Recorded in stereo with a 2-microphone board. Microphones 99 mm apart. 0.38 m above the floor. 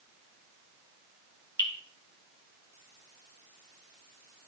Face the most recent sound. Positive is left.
turn(degrees=50)  # may be behind; listen again after turning